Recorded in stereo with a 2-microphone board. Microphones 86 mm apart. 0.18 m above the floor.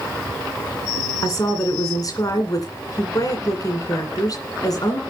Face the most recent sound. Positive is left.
turn(degrees=45)  # may be behind; listen again after turning